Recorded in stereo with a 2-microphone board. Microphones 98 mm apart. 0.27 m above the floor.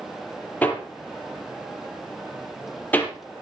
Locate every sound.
0.6 s hammering: 20° left (ahead or behind), 4 m